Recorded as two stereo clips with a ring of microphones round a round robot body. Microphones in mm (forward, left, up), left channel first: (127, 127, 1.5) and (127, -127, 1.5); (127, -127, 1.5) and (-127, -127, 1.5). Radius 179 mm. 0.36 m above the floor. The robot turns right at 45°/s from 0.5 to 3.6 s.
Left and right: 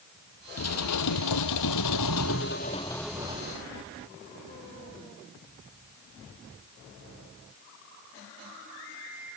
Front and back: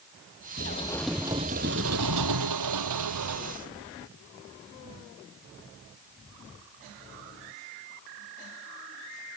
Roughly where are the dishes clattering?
Ahead left.